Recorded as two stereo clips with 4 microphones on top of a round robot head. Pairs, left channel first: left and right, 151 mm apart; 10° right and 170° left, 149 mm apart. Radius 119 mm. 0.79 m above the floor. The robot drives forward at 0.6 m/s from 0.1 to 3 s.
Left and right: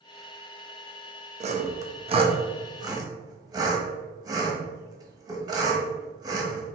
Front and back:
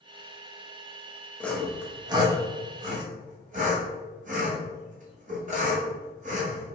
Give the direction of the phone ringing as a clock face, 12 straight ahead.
I don't hear a phone ringing.